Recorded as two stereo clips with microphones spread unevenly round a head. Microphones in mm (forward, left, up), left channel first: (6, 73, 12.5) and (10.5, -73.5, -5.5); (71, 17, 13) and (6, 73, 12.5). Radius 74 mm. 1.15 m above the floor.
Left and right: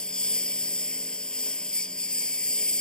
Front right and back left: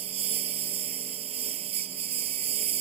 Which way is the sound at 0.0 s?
175° left.